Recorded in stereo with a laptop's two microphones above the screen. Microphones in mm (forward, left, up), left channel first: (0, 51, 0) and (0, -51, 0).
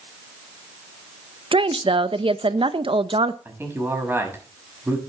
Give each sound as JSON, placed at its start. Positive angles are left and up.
{"t": 1.5, "sound": "a woman speaking", "side_deg": -60, "distance_m": 0.9}
{"t": 3.5, "sound": "a man speaking", "side_deg": -20, "distance_m": 6.0}